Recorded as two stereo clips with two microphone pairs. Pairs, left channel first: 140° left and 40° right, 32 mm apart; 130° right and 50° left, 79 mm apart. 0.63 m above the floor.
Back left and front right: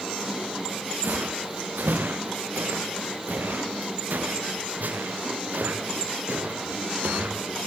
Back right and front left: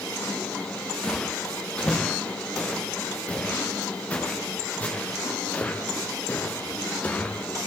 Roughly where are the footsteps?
Ahead right.